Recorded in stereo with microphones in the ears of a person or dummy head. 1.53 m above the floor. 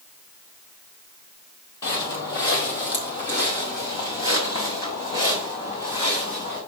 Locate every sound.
1.8 s footsteps: 15° left (ahead or behind), 2.5 m; by 6.6 s 25° left (ahead or behind), 6.5 m